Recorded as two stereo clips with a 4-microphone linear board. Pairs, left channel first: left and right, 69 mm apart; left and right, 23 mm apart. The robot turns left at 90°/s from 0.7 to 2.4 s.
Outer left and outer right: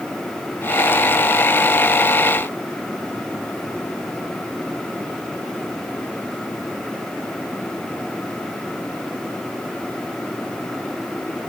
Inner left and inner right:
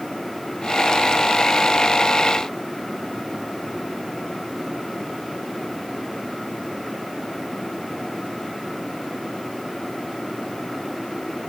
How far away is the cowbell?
I don't hear a cowbell.